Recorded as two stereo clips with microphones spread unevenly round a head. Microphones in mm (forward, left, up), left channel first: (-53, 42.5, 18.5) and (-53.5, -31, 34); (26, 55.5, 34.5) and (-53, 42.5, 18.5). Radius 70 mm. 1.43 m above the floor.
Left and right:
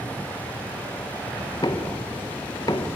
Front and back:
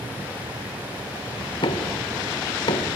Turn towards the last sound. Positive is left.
turn(degrees=30)